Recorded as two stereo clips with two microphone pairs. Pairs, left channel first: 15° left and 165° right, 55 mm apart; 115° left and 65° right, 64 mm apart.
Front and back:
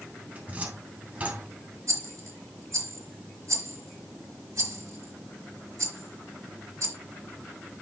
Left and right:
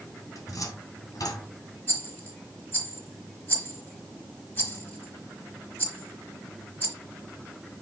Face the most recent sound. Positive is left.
turn(degrees=180)